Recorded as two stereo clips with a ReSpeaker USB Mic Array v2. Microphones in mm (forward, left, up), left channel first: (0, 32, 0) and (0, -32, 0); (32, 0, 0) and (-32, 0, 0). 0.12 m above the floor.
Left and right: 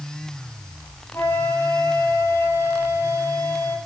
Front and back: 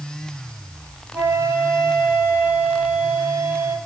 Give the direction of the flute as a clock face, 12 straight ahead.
8 o'clock.